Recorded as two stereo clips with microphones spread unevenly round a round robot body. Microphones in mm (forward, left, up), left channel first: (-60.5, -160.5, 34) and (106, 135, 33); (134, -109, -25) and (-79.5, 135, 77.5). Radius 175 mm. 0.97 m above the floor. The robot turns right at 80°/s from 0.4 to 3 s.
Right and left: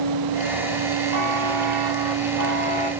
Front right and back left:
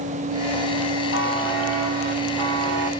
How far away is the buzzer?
About 4 m.